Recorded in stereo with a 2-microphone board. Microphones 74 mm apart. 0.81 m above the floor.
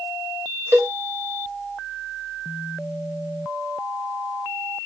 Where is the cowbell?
35° right (ahead or behind), 0.5 m.